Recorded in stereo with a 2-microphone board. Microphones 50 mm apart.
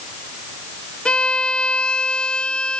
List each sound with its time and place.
1.1 s a violin: 20° left (ahead or behind), 0.9 m